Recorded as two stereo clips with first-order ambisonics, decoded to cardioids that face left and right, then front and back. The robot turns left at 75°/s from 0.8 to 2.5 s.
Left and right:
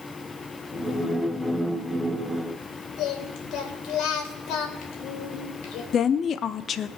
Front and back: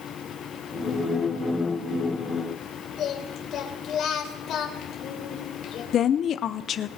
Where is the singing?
55° left, 3 m.